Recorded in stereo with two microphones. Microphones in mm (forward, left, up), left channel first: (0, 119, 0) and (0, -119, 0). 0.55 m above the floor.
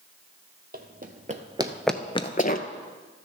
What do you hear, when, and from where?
0.7 s running footsteps: 40° right (ahead or behind), 1.1 m; by 2.7 s 40° left (ahead or behind), 0.8 m